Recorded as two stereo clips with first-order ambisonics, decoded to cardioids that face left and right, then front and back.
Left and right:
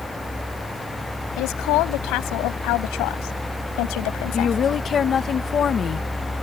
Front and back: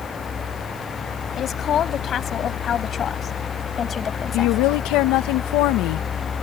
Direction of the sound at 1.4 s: 60° left.